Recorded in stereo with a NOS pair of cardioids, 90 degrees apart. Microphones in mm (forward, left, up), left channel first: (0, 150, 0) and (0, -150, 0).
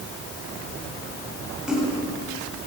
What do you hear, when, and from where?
1.7 s a splash: 5° right, 8 m